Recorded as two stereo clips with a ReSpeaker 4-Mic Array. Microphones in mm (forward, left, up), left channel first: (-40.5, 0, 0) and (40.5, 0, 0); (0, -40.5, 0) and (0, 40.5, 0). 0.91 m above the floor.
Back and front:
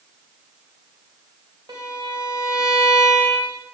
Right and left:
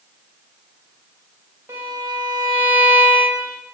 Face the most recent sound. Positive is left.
turn(degrees=35)